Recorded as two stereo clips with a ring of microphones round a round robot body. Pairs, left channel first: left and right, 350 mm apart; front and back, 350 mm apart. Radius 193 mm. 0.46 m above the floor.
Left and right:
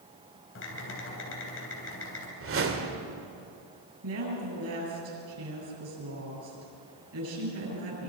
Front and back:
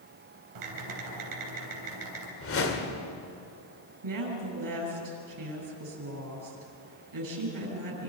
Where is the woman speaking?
145° right, 8 m.